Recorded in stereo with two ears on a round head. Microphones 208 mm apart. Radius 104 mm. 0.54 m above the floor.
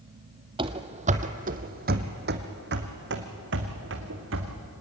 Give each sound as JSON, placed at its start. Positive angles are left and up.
{"t": 0.6, "sound": "running footsteps", "side_deg": -20, "distance_m": 1.0}